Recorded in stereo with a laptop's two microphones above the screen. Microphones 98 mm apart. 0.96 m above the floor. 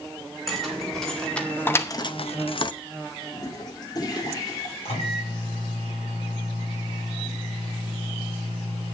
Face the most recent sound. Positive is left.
turn(degrees=85)